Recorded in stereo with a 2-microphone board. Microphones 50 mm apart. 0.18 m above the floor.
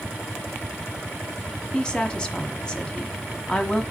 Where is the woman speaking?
15° left (ahead or behind), 1.2 m.